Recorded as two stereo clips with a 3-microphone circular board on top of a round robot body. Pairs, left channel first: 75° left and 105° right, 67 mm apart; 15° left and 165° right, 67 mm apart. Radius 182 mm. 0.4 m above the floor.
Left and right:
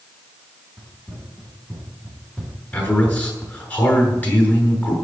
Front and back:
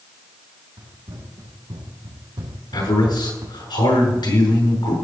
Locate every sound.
0.8 s running footsteps: straight behind, 5 m; by 3.6 s 155° left, 1.7 m
2.7 s a man speaking: 10° left, 7 m